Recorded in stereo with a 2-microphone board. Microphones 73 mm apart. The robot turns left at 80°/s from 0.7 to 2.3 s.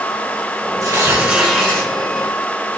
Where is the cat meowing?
No cat meowing in this recording.